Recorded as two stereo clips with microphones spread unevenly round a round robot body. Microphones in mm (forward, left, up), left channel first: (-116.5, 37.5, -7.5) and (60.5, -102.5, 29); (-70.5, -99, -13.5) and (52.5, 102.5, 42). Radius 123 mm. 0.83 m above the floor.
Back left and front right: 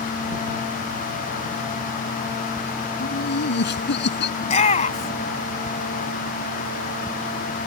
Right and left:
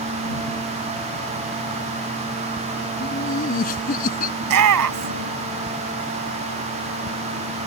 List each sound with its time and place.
3.0 s laughter: straight behind
4.4 s a shout: 75° left